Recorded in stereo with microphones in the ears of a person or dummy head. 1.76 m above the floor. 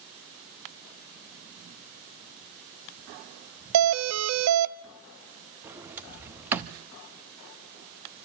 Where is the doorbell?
85° right, 0.6 m.